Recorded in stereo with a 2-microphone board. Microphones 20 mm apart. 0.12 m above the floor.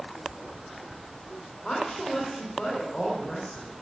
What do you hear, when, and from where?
1.6 s a woman speaking: 30° left (ahead or behind), 5.5 m